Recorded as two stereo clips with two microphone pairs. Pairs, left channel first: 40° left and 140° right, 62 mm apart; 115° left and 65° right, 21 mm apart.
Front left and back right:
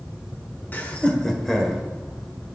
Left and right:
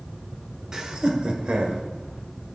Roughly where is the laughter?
Ahead.